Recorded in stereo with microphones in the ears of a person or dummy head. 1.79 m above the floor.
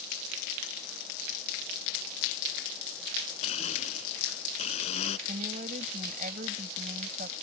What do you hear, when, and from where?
3.4 s a blender: 40° left (ahead or behind)
5.3 s a woman speaking: 45° right (ahead or behind)